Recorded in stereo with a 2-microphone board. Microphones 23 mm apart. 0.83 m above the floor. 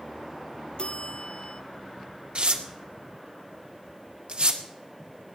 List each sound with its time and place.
0.8 s a bell: 45° left (ahead or behind), 0.6 m
2.4 s tearing paper: 55° right (ahead or behind), 1.8 m